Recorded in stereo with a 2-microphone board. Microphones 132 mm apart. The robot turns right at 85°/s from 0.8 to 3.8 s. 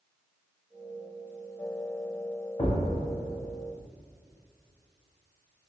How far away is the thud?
About 0.6 m.